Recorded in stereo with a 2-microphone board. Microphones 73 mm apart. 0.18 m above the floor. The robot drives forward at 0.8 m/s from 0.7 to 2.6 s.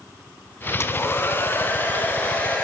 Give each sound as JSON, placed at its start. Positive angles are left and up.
{"t": 0.8, "sound": "a hair dryer", "side_deg": 35, "distance_m": 0.9}